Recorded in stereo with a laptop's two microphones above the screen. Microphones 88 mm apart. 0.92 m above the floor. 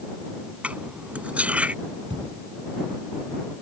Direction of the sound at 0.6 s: 15° right (ahead or behind).